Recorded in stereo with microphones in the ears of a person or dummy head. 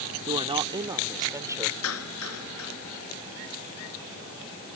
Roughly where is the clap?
Left.